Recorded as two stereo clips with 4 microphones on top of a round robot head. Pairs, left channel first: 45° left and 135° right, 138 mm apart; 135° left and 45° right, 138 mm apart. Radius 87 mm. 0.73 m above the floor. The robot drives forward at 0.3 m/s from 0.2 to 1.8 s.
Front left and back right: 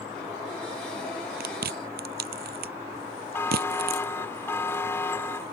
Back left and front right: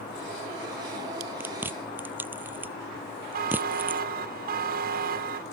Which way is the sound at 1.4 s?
125° right.